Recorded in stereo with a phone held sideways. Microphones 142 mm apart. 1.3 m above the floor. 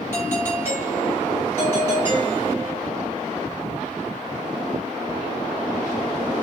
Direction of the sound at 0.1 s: 20° right (ahead or behind).